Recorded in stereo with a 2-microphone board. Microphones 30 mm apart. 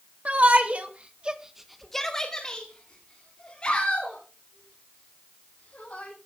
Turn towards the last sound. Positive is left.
turn(degrees=45)  # may be behind; listen again after turning